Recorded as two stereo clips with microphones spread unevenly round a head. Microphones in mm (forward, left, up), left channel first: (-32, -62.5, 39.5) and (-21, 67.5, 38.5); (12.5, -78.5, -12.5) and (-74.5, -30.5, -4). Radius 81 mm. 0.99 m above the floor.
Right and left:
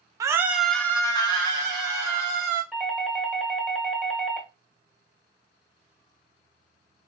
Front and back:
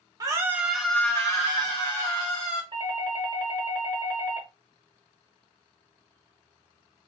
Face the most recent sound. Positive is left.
turn(degrees=180)